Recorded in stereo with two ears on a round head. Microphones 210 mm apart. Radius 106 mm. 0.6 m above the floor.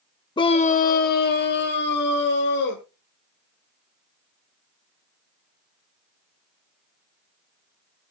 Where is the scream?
15° left (ahead or behind), 0.6 m; by 2.8 s 45° left (ahead or behind), 2.0 m.